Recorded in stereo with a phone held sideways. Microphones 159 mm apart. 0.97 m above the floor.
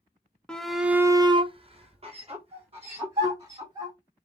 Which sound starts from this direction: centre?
A shout, at 0.5 s.